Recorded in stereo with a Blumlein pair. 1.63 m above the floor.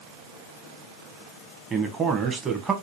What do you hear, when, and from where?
1.7 s a man speaking: 20° right, 0.9 m